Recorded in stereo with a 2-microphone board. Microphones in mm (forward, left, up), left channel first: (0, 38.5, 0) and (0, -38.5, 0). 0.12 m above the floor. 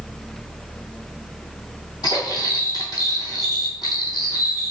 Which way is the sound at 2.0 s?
65° left (ahead or behind).